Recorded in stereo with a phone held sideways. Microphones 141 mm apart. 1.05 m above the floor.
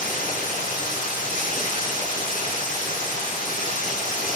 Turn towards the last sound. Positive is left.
turn(degrees=85)